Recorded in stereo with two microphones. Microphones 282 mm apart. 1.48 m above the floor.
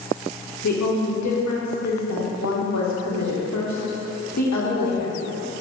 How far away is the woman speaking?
About 0.9 m.